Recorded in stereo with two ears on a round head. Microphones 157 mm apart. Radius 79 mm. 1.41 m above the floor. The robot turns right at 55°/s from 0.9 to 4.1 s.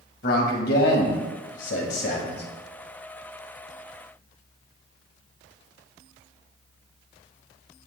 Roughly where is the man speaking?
Ahead left.